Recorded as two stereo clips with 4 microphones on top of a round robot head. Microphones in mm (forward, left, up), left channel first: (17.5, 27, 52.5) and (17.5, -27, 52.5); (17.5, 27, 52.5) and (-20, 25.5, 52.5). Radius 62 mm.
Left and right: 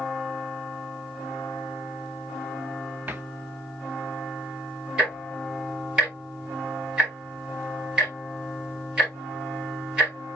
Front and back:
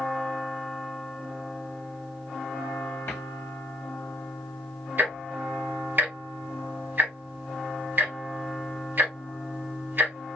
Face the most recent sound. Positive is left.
turn(degrees=-160)